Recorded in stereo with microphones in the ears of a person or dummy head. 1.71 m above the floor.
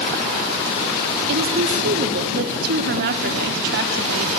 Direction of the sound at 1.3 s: 65° right (ahead or behind).